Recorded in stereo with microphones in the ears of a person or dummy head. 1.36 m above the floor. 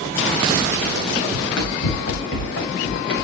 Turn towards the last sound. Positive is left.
turn(degrees=65)  # may be behind; listen again after turning